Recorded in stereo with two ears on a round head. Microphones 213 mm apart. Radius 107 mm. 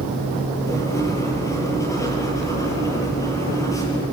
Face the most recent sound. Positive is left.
turn(degrees=15)  # may be behind; listen again after turning